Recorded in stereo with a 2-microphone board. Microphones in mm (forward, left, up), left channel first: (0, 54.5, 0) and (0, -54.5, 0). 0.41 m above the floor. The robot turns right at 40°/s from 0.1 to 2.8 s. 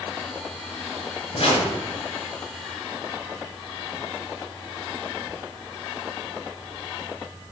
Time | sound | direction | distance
1.3 | a whoosh | 50° left (ahead or behind) | 2.5 m